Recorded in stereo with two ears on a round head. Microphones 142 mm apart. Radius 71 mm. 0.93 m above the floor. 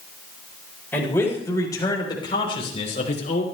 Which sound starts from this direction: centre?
A man speaking, at 0.9 s.